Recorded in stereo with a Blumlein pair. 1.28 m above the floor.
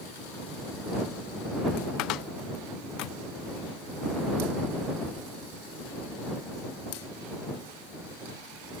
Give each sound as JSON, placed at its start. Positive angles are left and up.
{"t": 2.0, "sound": "a cupboard door", "azimuth_deg": 40}